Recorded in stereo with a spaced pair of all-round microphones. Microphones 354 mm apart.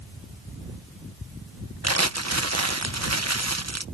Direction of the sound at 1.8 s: 50° right (ahead or behind).